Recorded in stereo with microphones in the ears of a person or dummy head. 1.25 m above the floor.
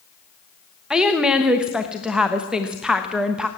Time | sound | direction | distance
0.9 | a woman speaking | 5° right (ahead or behind) | 1.1 m